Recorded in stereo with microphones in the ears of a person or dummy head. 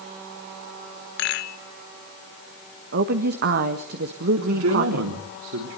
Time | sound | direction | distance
1.2 | a rattle | 70° left (ahead or behind) | 1.2 m
2.9 | a woman speaking | 55° right (ahead or behind) | 1.5 m
4.4 | a man speaking | 85° right | 3 m